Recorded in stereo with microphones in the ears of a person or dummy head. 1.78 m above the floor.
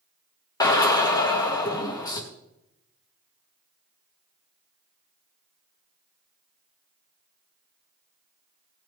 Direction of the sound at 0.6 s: 15° left (ahead or behind).